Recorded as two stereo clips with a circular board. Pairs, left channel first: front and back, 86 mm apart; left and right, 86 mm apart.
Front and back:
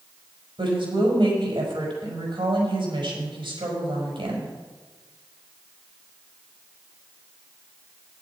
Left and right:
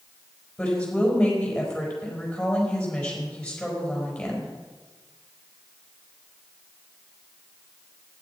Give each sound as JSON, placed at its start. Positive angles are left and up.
{"t": 0.6, "sound": "a woman speaking", "azimuth_deg": 170, "distance_m": 5.0}